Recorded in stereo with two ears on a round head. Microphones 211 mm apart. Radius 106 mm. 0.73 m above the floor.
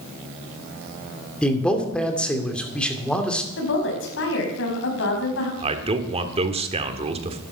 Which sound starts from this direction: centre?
A man speaking, at 1.4 s.